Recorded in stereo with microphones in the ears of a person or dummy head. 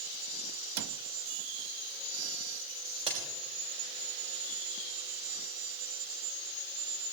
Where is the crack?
35° right (ahead or behind), 4.5 m.